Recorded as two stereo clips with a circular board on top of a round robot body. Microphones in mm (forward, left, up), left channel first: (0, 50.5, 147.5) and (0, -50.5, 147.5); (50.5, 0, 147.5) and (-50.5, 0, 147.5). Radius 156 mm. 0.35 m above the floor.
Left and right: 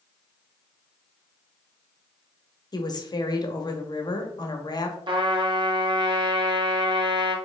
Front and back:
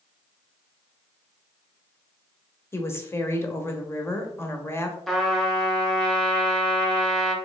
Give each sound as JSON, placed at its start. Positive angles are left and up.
{"t": 2.7, "sound": "a woman speaking", "azimuth_deg": 60, "distance_m": 1.1}
{"t": 5.1, "sound": "a trumpet", "azimuth_deg": -85, "distance_m": 1.3}